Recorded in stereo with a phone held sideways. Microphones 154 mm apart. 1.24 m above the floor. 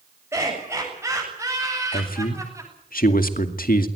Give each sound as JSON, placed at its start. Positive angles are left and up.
{"t": 0.3, "sound": "laughter", "side_deg": -15, "distance_m": 7.5}
{"t": 1.9, "sound": "a man speaking", "side_deg": 70, "distance_m": 2.0}